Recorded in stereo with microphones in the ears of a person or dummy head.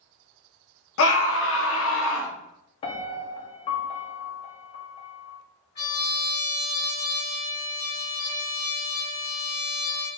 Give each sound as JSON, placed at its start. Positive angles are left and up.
{"t": 1.0, "sound": "a scream", "side_deg": 70, "distance_m": 0.6}
{"t": 2.8, "sound": "a piano", "side_deg": 30, "distance_m": 0.7}
{"t": 5.8, "sound": "a trumpet", "side_deg": 55, "distance_m": 2.5}